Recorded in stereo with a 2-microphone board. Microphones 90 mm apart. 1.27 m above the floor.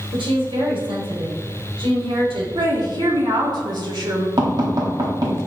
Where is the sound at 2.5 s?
60° right (ahead or behind), 3.5 m.